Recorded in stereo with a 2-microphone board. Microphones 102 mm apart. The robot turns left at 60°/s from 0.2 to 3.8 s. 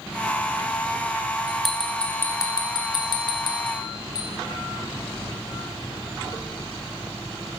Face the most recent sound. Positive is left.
turn(degrees=35)  # may be behind; listen again after turning